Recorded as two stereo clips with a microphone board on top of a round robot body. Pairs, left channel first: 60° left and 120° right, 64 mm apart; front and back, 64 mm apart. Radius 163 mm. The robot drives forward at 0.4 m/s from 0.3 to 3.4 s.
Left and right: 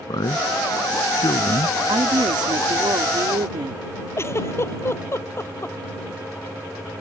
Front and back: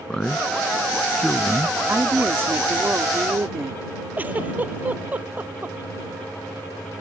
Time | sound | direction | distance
0.1 | a man speaking | 80° left | ?
1.9 | a woman speaking | 120° right | ?
4.2 | a giggle | 110° left | ?